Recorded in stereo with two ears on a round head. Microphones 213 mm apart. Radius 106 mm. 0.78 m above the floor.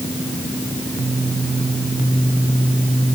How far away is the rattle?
I don't hear a rattle.